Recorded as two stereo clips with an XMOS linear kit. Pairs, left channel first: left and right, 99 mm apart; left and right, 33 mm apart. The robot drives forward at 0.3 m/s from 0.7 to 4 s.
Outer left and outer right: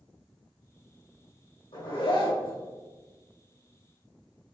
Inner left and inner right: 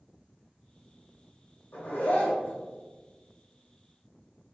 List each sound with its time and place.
1.7 s a zipper: 60° left (ahead or behind), 2.0 m; by 2.6 s 55° left (ahead or behind), 2 m